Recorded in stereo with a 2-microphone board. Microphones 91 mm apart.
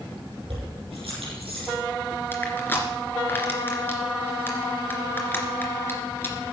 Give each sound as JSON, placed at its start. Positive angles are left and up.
{"t": 0.5, "sound": "keys jangling", "side_deg": -80, "distance_m": 7.0}
{"t": 2.3, "sound": "crushing", "side_deg": 20, "distance_m": 2.5}